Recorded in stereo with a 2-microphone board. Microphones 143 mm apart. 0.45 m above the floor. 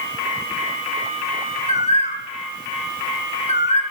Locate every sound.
1.7 s a bird: 50° left (ahead or behind), 0.8 m